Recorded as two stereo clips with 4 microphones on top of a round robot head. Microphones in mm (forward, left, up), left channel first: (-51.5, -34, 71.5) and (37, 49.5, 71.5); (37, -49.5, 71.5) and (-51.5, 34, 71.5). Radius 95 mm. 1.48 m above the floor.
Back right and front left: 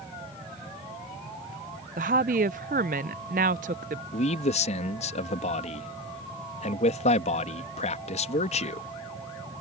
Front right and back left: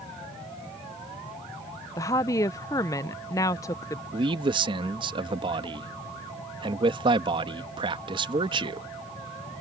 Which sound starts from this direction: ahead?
A woman speaking, at 2.0 s.